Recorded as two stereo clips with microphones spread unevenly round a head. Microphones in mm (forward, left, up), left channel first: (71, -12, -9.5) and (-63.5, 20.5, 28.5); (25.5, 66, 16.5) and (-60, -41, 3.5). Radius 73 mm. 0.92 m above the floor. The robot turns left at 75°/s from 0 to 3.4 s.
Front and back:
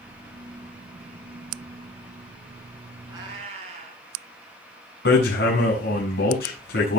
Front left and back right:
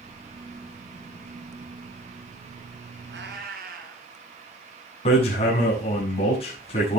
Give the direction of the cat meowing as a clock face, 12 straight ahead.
4 o'clock.